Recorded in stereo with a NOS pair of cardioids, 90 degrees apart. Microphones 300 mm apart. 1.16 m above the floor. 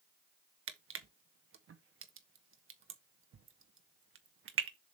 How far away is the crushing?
About 1.2 m.